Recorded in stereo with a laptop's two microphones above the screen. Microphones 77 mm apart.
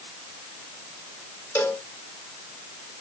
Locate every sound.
1.6 s a cowbell: 35° left (ahead or behind), 4.5 m